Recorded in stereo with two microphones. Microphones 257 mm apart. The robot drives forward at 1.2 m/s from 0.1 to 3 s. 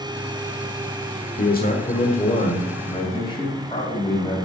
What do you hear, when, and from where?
1.4 s a man speaking: 35° left (ahead or behind), 1.1 m; by 4.4 s 15° left (ahead or behind), 2.5 m